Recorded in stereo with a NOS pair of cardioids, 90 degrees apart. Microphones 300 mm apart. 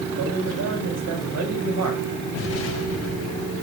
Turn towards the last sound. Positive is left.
turn(degrees=55)